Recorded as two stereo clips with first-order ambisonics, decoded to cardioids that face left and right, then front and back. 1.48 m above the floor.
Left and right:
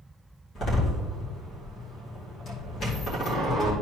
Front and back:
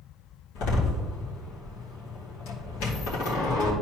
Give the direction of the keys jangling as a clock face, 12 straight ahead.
No keys jangling in this recording.